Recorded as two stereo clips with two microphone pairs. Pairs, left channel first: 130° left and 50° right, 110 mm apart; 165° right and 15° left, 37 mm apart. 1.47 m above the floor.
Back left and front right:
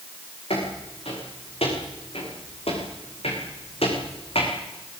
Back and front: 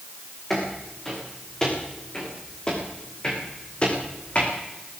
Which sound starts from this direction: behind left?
Footsteps, at 0.5 s.